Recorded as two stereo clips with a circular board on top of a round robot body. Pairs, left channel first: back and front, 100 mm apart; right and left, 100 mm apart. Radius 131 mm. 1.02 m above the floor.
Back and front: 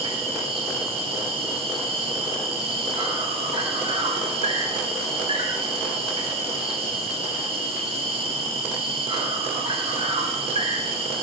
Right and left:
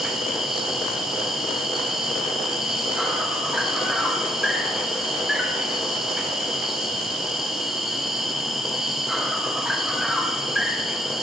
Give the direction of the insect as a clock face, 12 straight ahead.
12 o'clock.